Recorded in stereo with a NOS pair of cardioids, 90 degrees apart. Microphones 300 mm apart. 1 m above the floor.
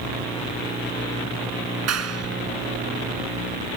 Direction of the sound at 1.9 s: 55° right.